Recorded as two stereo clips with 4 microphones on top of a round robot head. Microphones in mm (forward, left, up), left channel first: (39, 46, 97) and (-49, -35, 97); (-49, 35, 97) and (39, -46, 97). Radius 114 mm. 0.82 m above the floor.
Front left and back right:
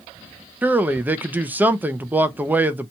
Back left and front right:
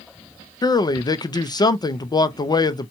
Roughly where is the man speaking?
Behind left.